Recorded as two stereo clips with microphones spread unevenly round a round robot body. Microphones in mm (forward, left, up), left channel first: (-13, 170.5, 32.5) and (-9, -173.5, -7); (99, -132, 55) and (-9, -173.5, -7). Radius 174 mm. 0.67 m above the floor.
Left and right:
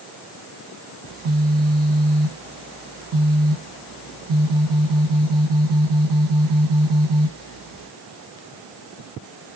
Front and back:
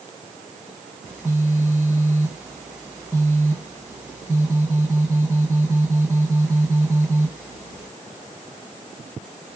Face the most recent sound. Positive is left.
turn(degrees=-105)